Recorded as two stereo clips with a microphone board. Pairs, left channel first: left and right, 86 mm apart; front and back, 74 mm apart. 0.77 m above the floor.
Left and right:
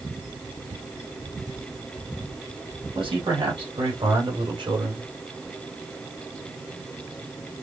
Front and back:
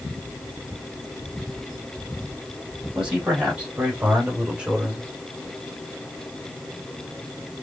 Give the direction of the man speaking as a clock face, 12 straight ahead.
4 o'clock.